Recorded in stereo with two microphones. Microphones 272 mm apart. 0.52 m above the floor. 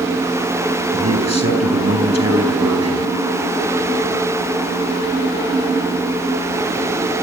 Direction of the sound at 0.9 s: 70° right (ahead or behind).